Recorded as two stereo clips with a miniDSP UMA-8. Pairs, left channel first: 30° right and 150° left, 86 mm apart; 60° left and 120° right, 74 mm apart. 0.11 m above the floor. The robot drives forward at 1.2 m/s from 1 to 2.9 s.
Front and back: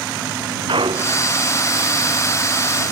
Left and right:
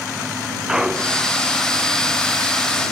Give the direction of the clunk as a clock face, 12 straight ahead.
7 o'clock.